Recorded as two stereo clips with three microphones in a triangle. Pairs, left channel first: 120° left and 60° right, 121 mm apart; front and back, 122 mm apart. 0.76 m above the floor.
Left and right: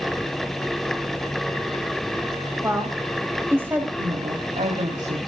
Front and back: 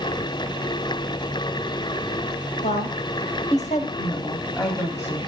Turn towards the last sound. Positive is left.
turn(degrees=-65)